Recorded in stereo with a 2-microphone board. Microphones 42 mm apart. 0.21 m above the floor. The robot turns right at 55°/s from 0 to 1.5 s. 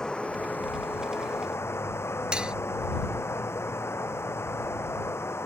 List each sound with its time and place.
0.0 s running water: 15° left; by 5.5 s 100° left
2.3 s cutlery clinking: 20° right (ahead or behind)